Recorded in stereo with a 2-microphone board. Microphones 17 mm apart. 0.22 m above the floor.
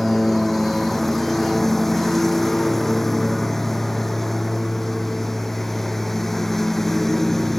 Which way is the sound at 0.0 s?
15° left (ahead or behind).